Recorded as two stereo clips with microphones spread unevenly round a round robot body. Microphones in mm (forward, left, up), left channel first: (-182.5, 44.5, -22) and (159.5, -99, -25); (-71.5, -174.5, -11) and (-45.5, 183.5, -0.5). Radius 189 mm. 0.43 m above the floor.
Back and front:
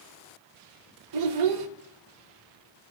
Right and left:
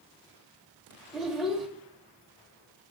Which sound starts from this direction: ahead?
A child speaking, at 1.1 s.